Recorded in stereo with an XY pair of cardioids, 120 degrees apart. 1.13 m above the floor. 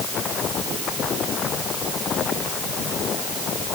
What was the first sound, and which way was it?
Only background noise.